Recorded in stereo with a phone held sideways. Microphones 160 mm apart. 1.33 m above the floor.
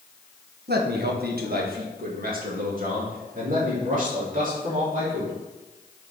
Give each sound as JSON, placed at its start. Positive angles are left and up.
{"t": 0.7, "sound": "a man speaking", "side_deg": -80, "distance_m": 1.2}